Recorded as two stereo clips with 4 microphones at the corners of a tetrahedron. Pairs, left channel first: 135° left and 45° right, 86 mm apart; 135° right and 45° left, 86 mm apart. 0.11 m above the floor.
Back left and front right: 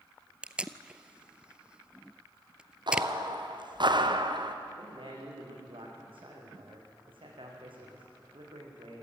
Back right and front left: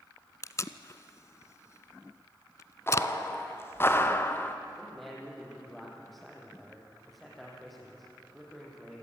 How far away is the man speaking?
About 6 m.